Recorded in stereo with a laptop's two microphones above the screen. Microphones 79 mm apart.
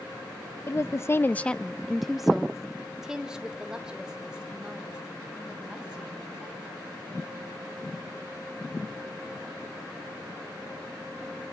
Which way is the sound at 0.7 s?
35° left (ahead or behind).